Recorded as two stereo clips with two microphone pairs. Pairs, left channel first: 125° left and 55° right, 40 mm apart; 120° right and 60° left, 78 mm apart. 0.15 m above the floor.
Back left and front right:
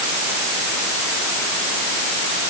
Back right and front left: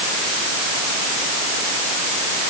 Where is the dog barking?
I don't hear a dog barking.